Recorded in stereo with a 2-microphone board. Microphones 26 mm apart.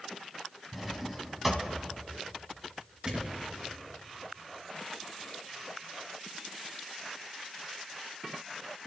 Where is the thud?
40° right (ahead or behind), 3.5 m.